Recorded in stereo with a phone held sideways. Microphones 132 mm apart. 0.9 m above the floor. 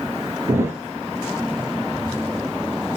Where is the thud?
20° right (ahead or behind), 2.5 m.